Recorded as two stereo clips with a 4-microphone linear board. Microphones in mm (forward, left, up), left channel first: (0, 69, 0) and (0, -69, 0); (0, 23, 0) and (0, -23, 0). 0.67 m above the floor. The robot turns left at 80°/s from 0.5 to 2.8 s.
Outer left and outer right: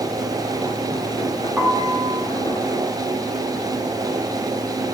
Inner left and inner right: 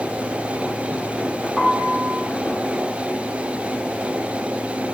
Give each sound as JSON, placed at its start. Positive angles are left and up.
{"t": 1.6, "sound": "a piano", "azimuth_deg": -10, "distance_m": 2.0}